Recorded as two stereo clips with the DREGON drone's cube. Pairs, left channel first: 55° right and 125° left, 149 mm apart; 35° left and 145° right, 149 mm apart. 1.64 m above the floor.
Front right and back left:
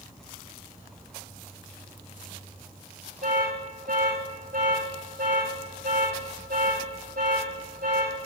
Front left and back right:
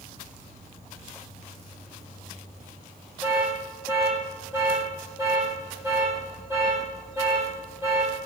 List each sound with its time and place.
0.0 s an insect: straight behind, 5 m
3.2 s an alarm: 140° left, 7.5 m